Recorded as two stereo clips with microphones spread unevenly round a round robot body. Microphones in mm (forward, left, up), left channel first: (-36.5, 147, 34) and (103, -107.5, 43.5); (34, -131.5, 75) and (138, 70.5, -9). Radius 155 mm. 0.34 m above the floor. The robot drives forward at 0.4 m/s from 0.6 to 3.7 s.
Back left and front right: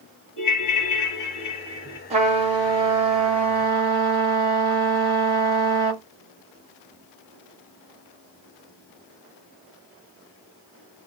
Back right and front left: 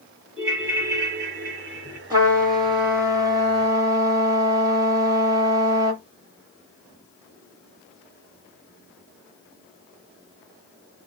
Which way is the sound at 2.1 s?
5° left.